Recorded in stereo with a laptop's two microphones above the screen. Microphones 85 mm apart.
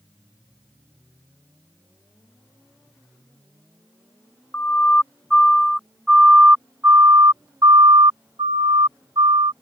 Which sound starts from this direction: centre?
A siren, at 4.5 s.